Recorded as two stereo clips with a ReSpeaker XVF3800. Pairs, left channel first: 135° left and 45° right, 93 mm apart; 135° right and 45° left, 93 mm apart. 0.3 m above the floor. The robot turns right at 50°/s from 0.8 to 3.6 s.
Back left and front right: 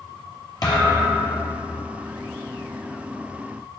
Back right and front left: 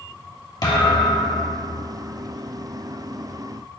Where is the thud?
Straight behind, 2.5 m; by 1.6 s 140° right, 2.5 m.